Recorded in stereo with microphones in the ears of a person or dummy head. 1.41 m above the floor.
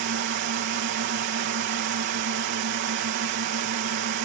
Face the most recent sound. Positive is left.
turn(degrees=-60)  # may be behind; listen again after turning